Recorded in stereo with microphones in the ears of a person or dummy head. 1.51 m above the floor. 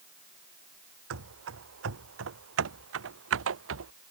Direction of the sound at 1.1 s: 75° right (ahead or behind).